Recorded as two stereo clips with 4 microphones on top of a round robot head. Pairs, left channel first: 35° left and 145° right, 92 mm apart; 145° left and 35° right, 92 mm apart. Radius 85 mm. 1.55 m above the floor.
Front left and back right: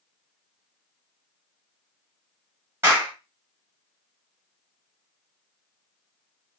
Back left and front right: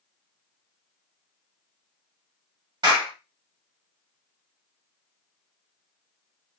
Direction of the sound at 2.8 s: 80° right.